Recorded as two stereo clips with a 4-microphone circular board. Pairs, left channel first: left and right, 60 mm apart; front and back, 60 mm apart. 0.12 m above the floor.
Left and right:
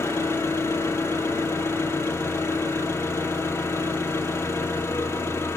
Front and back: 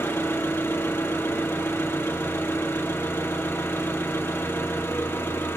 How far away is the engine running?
About 0.8 m.